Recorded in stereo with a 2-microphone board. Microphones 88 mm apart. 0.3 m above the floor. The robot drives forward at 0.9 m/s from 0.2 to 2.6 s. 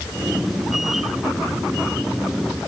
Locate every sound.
Only background noise.